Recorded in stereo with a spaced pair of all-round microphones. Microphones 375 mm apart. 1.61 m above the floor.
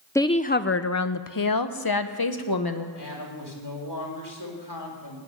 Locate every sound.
0.1 s a woman speaking: 5° left (ahead or behind), 0.5 m; by 2.9 s 65° left (ahead or behind), 1.4 m
3.0 s a woman speaking: 80° left, 4 m